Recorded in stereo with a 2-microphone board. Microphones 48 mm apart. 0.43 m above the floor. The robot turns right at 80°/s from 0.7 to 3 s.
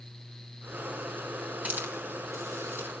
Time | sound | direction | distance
1.6 | a hiss | 30° right (ahead or behind) | 4 m